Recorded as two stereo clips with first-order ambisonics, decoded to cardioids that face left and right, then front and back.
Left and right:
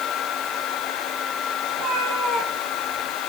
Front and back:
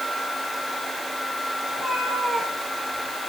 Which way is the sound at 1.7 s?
80° right.